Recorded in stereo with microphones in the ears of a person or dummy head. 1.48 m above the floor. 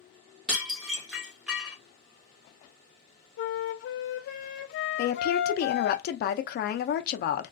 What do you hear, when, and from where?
0.5 s dishes clattering: 5° right (ahead or behind), 0.9 m
3.4 s a flute: 60° left (ahead or behind), 0.5 m
5.0 s a woman speaking: 55° left (ahead or behind), 0.5 m